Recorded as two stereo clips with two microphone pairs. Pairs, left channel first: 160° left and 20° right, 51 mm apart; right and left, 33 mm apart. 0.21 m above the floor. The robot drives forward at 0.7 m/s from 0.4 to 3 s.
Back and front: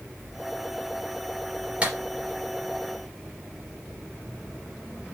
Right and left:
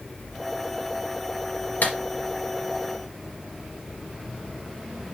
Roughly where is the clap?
Right.